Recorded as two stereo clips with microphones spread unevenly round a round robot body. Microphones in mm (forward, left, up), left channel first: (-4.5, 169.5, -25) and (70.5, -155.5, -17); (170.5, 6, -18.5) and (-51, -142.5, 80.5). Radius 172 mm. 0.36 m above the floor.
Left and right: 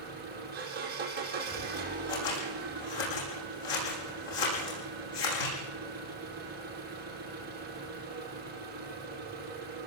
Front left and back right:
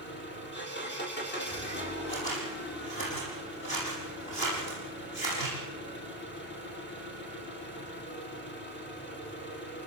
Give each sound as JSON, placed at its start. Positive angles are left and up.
{"t": 0.0, "sound": "an engine running", "azimuth_deg": -15, "distance_m": 6.0}
{"t": 2.1, "sound": "scissors", "azimuth_deg": 100, "distance_m": 8.5}